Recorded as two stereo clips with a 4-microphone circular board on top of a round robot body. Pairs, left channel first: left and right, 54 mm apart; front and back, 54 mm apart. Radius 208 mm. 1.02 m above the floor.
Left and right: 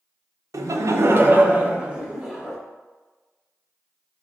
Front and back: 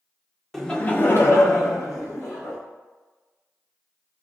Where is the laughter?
90° right, 0.6 m; by 2.6 s 5° right, 1.4 m.